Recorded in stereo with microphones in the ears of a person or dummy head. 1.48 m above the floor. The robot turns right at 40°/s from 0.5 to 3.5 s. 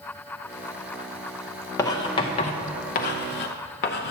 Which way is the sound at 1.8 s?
15° left (ahead or behind).